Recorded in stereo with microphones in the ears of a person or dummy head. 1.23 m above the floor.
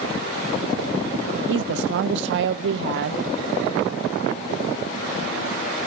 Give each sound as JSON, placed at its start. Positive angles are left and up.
{"t": 1.5, "sound": "a woman speaking", "side_deg": -75, "distance_m": 0.7}